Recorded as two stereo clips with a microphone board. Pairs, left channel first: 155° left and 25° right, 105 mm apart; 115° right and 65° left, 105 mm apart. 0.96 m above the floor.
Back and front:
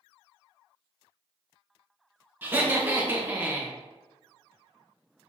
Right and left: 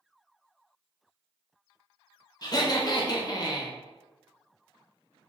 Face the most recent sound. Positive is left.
turn(degrees=-85)